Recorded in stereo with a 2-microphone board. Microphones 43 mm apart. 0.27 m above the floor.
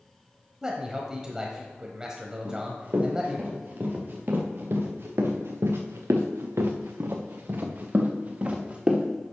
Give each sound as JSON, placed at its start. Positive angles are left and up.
{"t": 0.6, "sound": "a man speaking", "side_deg": -15, "distance_m": 1.1}
{"t": 2.5, "sound": "running footsteps", "side_deg": -40, "distance_m": 3.0}